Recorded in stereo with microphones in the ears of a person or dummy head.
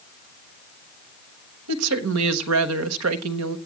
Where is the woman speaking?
85° right, 1.3 m.